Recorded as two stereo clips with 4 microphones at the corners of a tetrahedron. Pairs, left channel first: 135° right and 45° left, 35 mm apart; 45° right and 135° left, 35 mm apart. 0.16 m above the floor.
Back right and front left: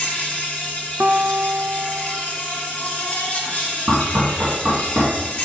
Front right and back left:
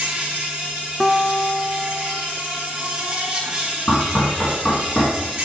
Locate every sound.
0.0 s an insect: straight behind, 2.5 m
1.0 s a guitar: 40° left, 0.6 m
3.9 s knocking: 30° left, 3 m